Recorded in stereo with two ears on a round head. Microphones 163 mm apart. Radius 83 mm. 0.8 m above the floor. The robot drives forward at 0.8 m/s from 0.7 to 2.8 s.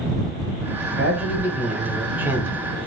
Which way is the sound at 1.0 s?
5° right (ahead or behind).